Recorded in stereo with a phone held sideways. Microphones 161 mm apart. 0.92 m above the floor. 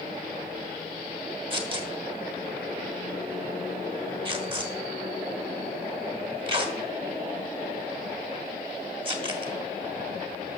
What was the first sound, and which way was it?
Tearing paper, 35° right (ahead or behind).